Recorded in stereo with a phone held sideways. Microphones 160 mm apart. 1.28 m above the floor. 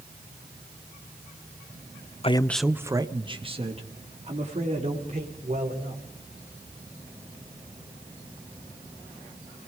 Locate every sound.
2.2 s a man speaking: 40° left (ahead or behind), 0.5 m; by 6.0 s 50° right (ahead or behind), 4.5 m